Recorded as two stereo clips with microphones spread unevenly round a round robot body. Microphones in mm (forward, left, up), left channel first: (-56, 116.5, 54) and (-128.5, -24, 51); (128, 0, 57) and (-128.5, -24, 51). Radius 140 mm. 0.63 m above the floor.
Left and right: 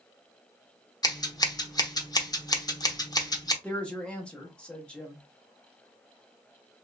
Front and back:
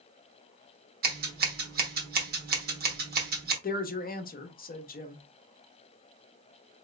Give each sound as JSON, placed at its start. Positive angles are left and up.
{"t": 1.0, "sound": "scissors", "azimuth_deg": 130, "distance_m": 1.1}
{"t": 3.6, "sound": "a woman speaking", "azimuth_deg": -15, "distance_m": 0.8}